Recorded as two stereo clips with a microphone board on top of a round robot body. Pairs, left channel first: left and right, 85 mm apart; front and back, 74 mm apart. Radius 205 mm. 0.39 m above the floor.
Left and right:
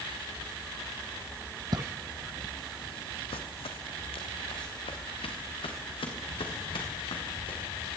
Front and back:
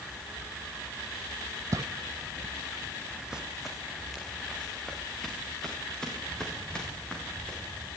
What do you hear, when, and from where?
1.7 s footsteps: 130° right, 1.0 m; by 7.9 s 80° left, 6.5 m